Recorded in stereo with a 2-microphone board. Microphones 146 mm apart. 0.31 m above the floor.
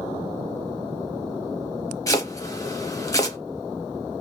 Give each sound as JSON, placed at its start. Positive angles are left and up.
{"t": 2.1, "sound": "chopping", "side_deg": 25, "distance_m": 0.7}